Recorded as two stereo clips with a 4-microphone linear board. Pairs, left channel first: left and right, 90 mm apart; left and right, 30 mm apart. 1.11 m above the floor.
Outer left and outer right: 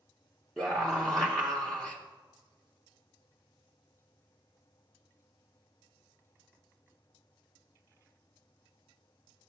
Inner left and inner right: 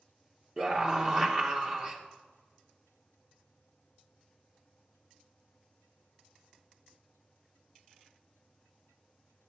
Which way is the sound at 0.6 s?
5° left (ahead or behind).